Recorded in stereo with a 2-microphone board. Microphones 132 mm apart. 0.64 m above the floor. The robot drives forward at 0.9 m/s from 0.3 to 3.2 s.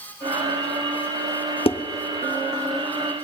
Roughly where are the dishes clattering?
Left.